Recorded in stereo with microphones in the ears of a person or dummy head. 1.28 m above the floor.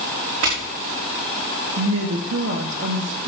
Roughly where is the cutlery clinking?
I don't hear cutlery clinking.